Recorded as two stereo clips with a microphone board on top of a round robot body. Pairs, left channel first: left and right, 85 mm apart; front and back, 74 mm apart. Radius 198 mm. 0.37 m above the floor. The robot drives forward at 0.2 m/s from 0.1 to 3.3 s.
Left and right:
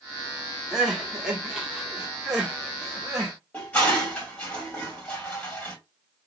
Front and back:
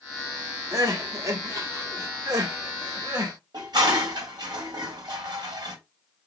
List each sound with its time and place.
0.7 s crying: 170° right, 1.6 m; by 3.3 s 175° right, 1.9 m
3.5 s dishes clattering: 165° left, 2 m